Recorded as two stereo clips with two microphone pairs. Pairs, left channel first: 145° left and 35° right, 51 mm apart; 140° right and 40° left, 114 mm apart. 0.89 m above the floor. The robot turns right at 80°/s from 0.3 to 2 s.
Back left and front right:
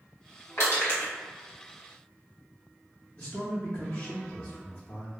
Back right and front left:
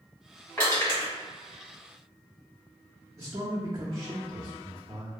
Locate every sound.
0.6 s crushing: 145° left, 1.8 m; by 1.1 s 170° right, 1.8 m
3.2 s a man speaking: 100° left, 0.6 m